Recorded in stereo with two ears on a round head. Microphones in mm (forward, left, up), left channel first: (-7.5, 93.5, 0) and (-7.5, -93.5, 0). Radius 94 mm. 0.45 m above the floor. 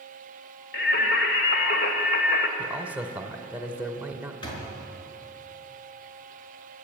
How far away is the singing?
About 2 m.